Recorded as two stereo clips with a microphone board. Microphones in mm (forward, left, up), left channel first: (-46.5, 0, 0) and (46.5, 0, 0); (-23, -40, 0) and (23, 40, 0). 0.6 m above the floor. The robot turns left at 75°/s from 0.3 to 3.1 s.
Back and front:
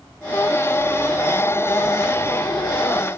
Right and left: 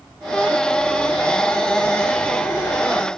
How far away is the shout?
No shout in this recording.